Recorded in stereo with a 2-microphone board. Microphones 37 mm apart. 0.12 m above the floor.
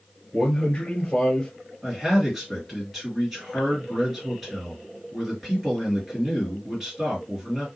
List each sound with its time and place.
0.3 s a man speaking: 20° left (ahead or behind), 1.8 m
1.8 s a man speaking: 5° right (ahead or behind), 2.0 m